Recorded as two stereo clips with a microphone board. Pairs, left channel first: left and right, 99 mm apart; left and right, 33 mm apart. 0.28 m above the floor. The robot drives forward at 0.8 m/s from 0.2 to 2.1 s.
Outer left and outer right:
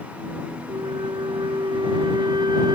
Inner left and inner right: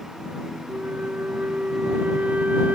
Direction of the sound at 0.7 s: 65° right (ahead or behind).